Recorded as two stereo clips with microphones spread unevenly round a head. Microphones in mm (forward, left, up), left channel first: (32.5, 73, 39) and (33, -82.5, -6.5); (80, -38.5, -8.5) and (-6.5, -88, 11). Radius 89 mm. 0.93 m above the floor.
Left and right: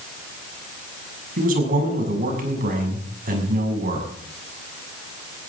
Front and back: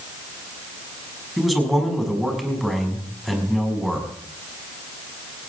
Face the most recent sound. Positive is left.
turn(degrees=-60)